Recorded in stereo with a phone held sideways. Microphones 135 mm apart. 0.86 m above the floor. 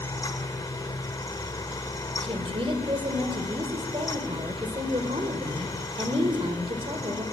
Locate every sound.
0.0 s a fan: 30° left (ahead or behind), 1.5 m
2.2 s a woman speaking: 40° right (ahead or behind), 2.5 m